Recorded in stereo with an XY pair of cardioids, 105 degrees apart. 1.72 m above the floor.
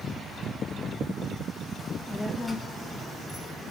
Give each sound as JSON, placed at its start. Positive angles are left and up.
{"t": 1.8, "sound": "a child speaking", "azimuth_deg": 15, "distance_m": 2.0}